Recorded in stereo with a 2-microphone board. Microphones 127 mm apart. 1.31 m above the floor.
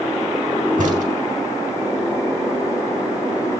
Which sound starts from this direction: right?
A crack, at 0.8 s.